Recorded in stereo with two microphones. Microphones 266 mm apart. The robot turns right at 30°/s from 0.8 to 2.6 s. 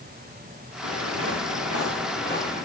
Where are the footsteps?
70° left (ahead or behind), 2.5 m; by 2.6 s 30° left (ahead or behind), 3 m.